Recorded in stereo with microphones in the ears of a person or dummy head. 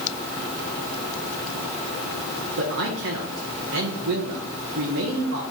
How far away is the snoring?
I don't hear snoring.